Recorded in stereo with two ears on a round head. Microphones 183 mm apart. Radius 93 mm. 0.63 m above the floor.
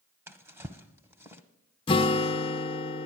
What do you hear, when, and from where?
0.3 s a drawer: 10° right (ahead or behind), 0.8 m
1.9 s a guitar: 25° left (ahead or behind), 0.6 m